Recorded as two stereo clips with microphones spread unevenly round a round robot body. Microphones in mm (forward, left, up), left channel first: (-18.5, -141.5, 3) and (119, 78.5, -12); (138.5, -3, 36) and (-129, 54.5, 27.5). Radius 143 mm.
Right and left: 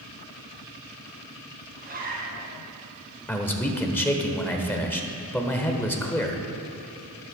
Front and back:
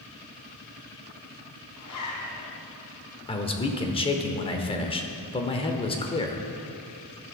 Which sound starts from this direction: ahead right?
A man speaking, at 3.3 s.